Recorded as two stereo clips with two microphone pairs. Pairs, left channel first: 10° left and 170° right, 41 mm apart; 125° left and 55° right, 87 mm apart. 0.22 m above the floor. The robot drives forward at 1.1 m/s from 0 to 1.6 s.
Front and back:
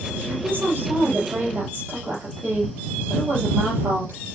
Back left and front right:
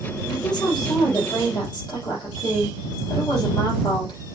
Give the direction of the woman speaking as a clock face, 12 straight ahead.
7 o'clock.